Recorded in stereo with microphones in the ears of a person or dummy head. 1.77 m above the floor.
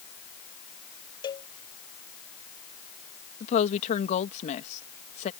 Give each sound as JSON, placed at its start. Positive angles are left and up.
{"t": 1.2, "sound": "a cowbell", "side_deg": 20}
{"t": 3.4, "sound": "a woman speaking", "side_deg": 40}